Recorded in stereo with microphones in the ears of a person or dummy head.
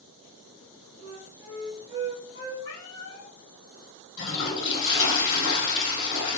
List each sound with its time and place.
1.0 s a flute: 20° right (ahead or behind), 1.2 m
2.6 s a cat meowing: 65° left (ahead or behind), 1.7 m
4.2 s a toilet flushing: 70° left (ahead or behind), 2 m